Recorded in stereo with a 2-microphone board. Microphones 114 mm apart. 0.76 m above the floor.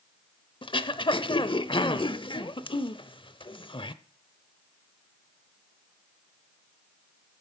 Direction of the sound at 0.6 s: 45° left (ahead or behind).